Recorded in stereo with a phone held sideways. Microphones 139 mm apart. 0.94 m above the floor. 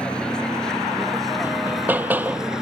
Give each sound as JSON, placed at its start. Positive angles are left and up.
{"t": 0.0, "sound": "a vehicle", "side_deg": 5}
{"t": 1.4, "sound": "hammering", "side_deg": -10}